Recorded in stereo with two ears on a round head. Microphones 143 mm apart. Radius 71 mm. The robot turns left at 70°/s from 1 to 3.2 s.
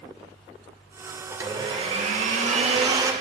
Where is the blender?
20° right, 0.7 m; by 3.1 s 150° right, 0.7 m.